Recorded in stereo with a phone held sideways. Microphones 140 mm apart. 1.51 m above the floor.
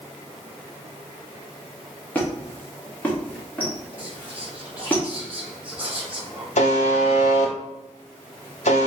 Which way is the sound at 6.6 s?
60° left (ahead or behind).